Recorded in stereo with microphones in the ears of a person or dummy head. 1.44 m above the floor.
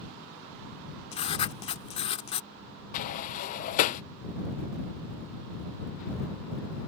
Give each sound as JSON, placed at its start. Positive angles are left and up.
{"t": 1.1, "sound": "writing", "side_deg": 30}
{"t": 2.9, "sound": "a sliding door", "side_deg": 45}